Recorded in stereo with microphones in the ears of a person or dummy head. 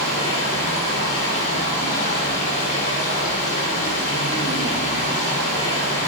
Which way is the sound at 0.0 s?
45° left (ahead or behind).